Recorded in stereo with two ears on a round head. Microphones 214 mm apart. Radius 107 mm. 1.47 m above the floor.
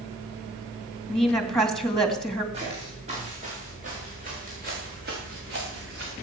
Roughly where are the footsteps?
Right.